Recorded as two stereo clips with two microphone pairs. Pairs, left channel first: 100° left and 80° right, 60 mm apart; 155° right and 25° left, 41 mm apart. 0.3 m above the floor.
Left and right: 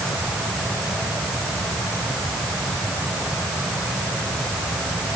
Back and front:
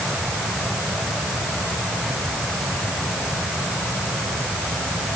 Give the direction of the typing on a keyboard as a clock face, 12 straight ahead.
No typing on a keyboard in this recording.